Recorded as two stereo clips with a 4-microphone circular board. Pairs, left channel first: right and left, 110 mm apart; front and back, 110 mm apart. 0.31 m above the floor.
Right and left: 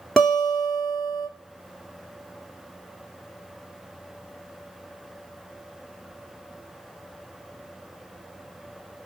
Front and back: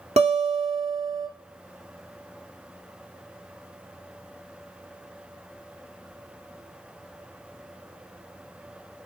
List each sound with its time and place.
0.2 s a guitar: straight behind, 0.9 m